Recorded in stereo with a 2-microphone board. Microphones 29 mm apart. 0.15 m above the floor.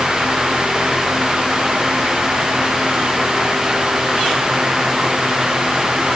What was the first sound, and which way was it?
Only background noise.